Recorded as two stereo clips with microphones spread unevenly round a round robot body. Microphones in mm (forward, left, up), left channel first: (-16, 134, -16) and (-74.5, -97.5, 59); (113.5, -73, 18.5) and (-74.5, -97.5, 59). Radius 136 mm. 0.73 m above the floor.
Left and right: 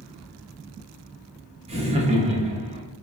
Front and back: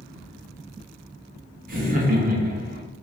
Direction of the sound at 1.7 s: Straight behind.